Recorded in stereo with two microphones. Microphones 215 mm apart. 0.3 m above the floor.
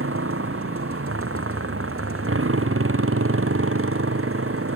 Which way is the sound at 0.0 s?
80° right.